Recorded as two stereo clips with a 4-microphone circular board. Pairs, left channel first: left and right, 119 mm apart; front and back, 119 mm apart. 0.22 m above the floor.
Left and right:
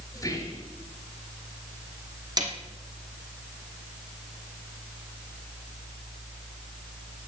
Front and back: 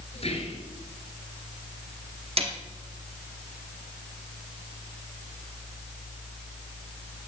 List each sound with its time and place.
0.1 s whispering: 30° left, 5 m
2.4 s a snare drum: 145° right, 2 m